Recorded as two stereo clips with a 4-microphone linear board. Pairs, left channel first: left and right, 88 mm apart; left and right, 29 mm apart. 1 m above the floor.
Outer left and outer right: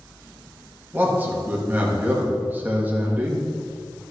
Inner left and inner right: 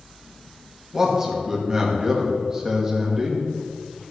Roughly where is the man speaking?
Right.